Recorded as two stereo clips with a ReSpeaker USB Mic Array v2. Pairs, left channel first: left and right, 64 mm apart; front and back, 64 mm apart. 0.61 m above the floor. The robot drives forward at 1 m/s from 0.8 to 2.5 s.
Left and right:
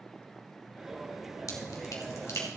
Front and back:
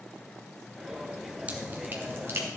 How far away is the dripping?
About 2 m.